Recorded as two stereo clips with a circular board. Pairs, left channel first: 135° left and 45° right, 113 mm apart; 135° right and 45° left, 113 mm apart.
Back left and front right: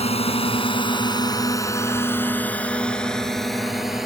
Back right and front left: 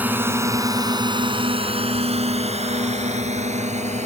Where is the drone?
120° left; by 4.1 s 40° left.